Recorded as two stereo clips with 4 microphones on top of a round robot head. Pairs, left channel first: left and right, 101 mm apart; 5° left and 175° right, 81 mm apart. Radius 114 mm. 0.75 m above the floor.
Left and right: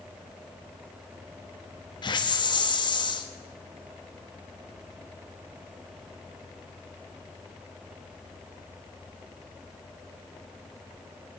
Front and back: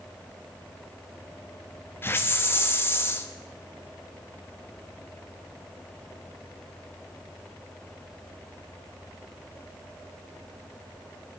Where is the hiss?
60° left, 1.3 m.